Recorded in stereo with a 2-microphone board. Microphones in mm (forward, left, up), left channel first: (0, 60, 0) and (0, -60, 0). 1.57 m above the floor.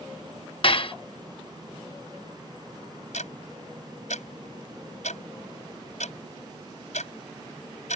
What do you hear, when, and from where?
0.6 s dishes clattering: 45° left (ahead or behind)
3.1 s ticking: 75° left (ahead or behind)